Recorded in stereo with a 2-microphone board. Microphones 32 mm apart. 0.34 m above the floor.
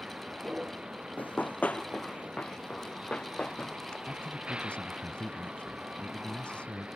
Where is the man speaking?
40° left (ahead or behind).